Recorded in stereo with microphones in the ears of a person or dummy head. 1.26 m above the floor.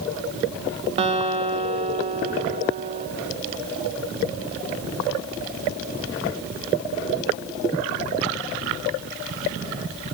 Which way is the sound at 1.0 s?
30° right (ahead or behind).